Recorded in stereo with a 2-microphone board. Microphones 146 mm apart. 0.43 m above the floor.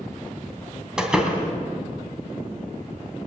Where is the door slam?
5° right (ahead or behind), 2.5 m.